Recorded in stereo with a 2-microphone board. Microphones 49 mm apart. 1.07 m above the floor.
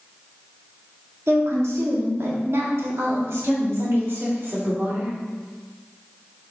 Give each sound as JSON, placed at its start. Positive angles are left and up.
{"t": 1.3, "sound": "a woman speaking", "side_deg": -80, "distance_m": 2.0}